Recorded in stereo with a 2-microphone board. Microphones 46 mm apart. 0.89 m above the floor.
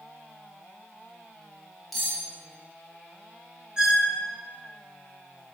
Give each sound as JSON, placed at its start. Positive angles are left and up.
{"t": 1.9, "sound": "cutlery clinking", "side_deg": 0, "distance_m": 1.9}
{"t": 3.8, "sound": "a squeak", "side_deg": -15, "distance_m": 0.7}